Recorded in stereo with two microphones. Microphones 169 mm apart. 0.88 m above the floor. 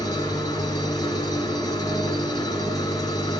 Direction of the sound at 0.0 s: 20° left (ahead or behind).